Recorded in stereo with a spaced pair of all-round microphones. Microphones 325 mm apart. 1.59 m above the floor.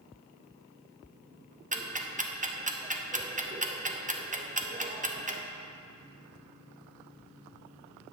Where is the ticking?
25° right (ahead or behind), 0.6 m.